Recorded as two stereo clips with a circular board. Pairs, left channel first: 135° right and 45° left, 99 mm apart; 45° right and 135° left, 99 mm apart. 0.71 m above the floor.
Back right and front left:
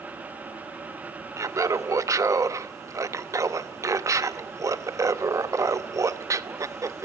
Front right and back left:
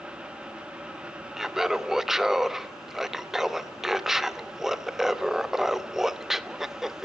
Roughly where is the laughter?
Ahead left.